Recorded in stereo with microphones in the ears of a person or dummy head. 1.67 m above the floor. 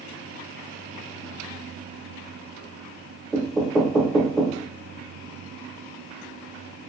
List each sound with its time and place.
3.3 s knocking: 5° left (ahead or behind), 0.6 m